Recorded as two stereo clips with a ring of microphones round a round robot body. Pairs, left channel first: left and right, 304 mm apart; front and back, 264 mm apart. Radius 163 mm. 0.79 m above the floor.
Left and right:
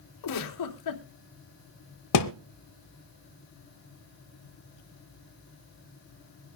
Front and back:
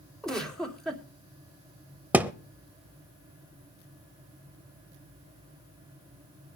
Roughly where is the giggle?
Left.